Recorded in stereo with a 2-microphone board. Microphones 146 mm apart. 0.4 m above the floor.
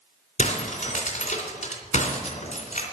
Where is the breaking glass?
55° left (ahead or behind), 3 m.